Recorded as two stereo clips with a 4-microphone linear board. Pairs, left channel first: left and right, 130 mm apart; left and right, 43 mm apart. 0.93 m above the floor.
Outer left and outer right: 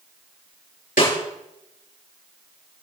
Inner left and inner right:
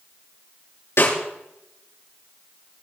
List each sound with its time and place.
1.0 s a snare drum: 90° left, 8.5 m